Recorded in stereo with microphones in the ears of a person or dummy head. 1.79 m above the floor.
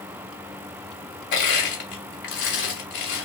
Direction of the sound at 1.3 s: 50° left (ahead or behind).